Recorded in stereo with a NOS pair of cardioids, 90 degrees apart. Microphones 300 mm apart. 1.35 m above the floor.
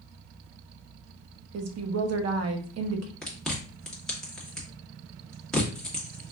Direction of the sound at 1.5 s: 55° right.